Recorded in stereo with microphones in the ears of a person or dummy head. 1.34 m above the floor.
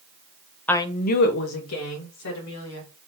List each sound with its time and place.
0.7 s a woman speaking: 5° left (ahead or behind), 0.5 m; by 2.9 s 90° left, 2 m